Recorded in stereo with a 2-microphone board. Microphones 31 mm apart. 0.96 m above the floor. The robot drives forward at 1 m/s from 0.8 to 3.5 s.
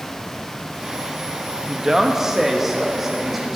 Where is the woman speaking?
20° right (ahead or behind), 1.0 m; by 3.6 s 5° right (ahead or behind), 2.5 m.